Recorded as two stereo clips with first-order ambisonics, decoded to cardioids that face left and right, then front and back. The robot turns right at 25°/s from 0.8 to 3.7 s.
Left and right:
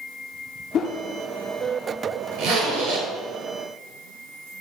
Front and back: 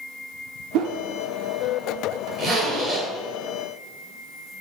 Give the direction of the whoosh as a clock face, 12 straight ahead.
7 o'clock.